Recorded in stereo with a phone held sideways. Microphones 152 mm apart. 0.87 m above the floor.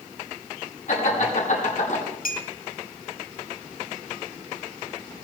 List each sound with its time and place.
0.9 s laughter: 60° left (ahead or behind), 9 m; by 2.0 s 65° left (ahead or behind), 9 m
2.2 s a clink: 80° left, 1.9 m